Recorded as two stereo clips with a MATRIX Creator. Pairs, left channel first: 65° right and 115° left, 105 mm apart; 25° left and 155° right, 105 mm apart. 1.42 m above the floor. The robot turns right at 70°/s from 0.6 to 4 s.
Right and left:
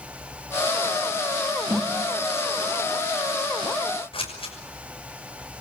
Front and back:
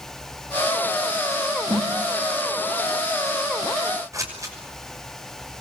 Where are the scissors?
100° right, 6 m.